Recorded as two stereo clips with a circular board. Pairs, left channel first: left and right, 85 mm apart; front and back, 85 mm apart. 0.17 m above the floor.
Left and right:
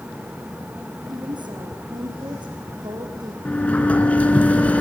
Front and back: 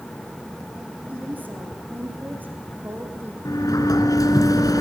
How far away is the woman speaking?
About 6 m.